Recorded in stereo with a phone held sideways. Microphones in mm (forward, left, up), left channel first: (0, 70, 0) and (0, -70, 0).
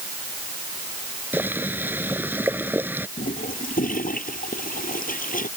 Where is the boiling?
15° right (ahead or behind).